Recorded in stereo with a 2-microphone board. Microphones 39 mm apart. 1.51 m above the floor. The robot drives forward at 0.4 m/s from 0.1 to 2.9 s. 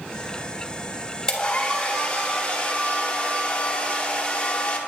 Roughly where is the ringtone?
I don't hear a ringtone.